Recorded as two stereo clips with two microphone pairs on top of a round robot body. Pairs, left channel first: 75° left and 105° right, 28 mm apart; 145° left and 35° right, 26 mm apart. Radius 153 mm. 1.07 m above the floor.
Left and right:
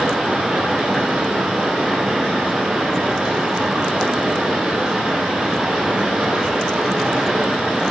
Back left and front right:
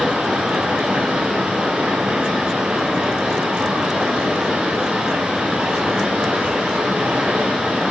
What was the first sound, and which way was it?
Running water, 50° right.